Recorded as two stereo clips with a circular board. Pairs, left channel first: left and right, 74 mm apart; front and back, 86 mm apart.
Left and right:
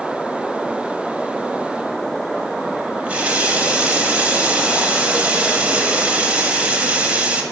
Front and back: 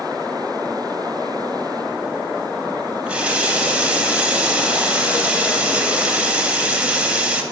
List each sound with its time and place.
3.0 s a running tap: 125° right, 0.6 m